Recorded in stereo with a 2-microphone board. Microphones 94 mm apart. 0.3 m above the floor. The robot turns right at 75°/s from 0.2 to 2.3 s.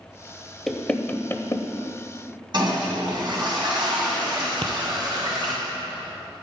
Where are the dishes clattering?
I don't hear dishes clattering.